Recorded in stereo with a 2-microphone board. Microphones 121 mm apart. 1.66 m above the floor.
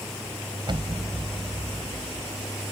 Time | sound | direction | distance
0.7 | an explosion | 40° right (ahead or behind) | ?